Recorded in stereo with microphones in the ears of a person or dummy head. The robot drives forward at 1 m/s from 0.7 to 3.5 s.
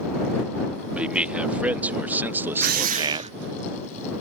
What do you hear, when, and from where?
0.9 s a man speaking: 5° right (ahead or behind); by 3.3 s 30° right (ahead or behind)
2.6 s a drill: 55° right (ahead or behind); by 3.4 s 35° right (ahead or behind)